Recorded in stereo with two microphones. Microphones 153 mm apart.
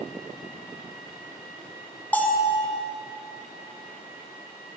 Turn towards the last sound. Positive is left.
turn(degrees=10)  # may be behind; listen again after turning